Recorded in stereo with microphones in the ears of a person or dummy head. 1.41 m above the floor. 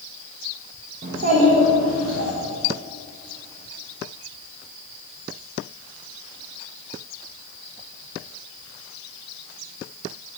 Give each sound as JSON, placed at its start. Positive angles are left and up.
{"t": 1.0, "sound": "a child speaking", "side_deg": -45, "distance_m": 0.8}